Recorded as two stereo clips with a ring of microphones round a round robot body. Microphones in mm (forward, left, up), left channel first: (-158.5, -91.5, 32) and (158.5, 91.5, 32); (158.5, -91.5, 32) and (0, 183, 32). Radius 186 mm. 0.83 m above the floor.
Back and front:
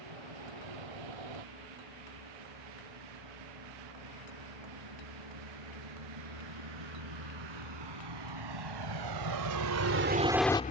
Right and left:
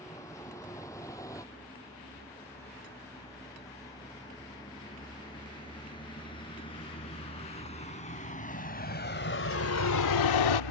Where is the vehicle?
20° left; by 10.7 s 85° right.